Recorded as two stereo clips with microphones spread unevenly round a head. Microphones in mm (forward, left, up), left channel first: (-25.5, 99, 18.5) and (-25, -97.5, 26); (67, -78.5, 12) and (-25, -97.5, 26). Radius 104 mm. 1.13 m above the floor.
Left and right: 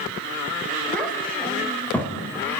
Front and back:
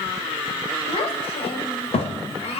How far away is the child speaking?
About 3.5 m.